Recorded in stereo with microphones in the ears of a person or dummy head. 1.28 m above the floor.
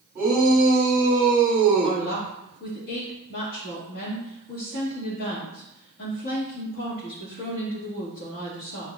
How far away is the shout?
About 2.5 m.